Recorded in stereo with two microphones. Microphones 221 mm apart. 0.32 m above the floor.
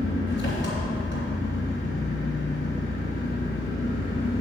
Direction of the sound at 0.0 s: 55° left (ahead or behind).